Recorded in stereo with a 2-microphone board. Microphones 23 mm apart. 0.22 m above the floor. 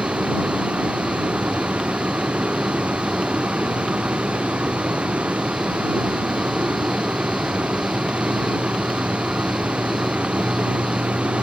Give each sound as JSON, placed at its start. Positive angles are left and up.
{"t": 0.0, "sound": "a vehicle", "side_deg": -65}